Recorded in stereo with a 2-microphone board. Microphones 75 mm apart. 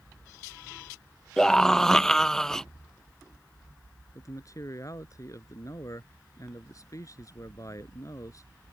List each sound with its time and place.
1.4 s a scream: 5° left (ahead or behind)
4.2 s a man speaking: 50° left (ahead or behind)